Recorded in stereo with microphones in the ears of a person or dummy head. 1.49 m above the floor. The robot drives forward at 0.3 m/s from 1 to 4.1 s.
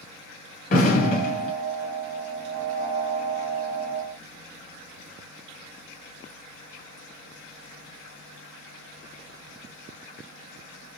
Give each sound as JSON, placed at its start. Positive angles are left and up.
{"t": 0.7, "sound": "an explosion", "side_deg": 45, "distance_m": 1.5}